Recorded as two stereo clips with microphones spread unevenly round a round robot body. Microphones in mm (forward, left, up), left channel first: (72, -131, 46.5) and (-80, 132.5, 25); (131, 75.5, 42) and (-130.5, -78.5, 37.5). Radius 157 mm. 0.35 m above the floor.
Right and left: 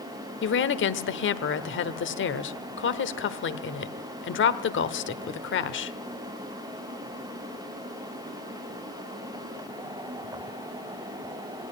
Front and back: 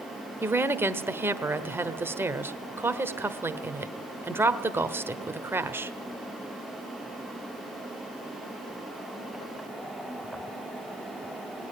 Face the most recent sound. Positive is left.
turn(degrees=-75)